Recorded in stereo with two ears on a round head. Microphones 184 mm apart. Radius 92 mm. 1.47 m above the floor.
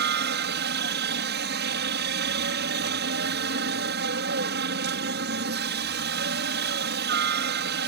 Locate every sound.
0.0 s a helicopter: 55° right (ahead or behind)